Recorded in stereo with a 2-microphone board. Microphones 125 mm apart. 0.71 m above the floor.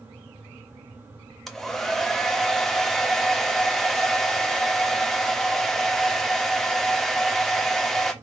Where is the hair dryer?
5° left (ahead or behind), 0.9 m.